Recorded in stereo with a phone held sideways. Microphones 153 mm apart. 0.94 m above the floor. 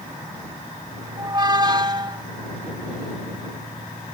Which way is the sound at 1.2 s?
30° right (ahead or behind).